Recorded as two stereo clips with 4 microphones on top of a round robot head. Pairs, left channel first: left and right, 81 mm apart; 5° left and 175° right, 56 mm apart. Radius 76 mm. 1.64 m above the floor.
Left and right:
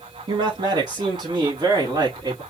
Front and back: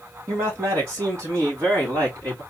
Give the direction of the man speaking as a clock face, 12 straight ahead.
4 o'clock.